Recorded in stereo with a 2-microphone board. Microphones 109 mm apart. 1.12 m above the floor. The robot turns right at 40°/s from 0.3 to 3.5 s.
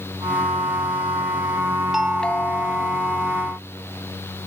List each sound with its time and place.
1.9 s a doorbell: 5° right; by 3.0 s 40° left